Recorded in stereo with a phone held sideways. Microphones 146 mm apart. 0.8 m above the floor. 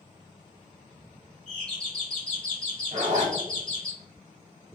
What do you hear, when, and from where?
1.5 s a doorbell: 5° left (ahead or behind), 1.3 m
2.9 s a zipper: 55° right (ahead or behind), 1.0 m